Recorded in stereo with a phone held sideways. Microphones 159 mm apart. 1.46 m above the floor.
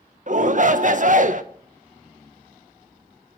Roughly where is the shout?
Right.